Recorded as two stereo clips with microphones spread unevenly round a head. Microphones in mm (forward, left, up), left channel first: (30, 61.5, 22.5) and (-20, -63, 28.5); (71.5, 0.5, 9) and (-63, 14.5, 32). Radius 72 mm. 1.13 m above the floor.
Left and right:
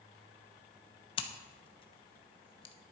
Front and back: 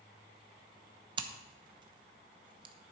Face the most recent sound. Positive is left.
turn(degrees=115)